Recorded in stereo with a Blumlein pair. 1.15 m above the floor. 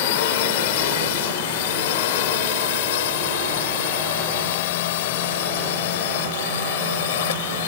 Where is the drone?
50° left; by 7.7 s 55° left.